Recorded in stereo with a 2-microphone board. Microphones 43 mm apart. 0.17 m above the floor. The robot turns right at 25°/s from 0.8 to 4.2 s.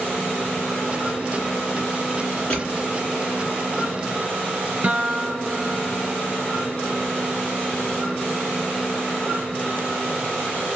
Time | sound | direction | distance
2.5 | crushing | 25° left (ahead or behind) | 2.5 m
4.8 | a guitar | 35° right (ahead or behind) | 0.5 m